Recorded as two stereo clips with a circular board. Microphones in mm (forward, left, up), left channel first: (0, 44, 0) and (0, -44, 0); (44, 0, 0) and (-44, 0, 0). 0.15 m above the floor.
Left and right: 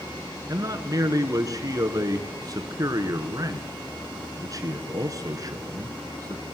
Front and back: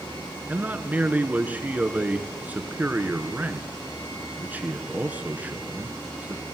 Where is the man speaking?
115° right, 2 m.